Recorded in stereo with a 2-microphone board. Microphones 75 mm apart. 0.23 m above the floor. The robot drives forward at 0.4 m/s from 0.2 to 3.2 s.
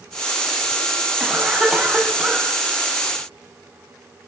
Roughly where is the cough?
Centre.